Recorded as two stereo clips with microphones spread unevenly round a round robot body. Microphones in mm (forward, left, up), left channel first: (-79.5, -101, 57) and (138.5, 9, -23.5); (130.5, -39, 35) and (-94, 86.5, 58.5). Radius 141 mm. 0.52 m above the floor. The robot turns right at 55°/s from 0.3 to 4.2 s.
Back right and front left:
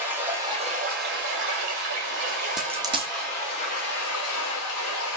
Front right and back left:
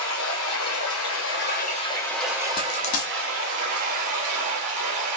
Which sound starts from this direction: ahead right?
Running water, at 0.0 s.